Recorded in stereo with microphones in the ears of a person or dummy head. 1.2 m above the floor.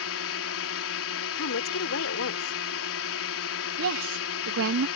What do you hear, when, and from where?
0.0 s a drone: 70° left (ahead or behind)
1.4 s a woman speaking: 70° left (ahead or behind)
3.8 s a woman speaking: 70° right (ahead or behind)